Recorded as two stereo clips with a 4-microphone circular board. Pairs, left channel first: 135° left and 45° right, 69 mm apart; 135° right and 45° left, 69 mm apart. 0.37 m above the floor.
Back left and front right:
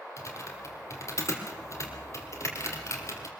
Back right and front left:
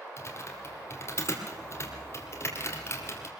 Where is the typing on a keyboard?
Straight behind, 3.5 m.